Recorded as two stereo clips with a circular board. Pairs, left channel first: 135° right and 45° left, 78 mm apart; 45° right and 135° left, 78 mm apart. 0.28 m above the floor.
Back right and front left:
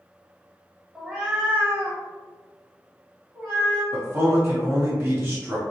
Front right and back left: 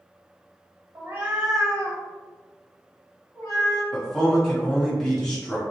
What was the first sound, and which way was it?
A cat meowing, 130° left.